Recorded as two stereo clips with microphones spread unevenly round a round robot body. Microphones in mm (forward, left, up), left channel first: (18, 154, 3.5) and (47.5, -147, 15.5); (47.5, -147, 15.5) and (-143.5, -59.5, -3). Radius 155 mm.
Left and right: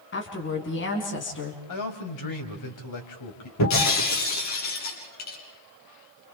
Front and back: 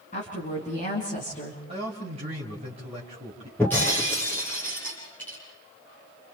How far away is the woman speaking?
About 4 m.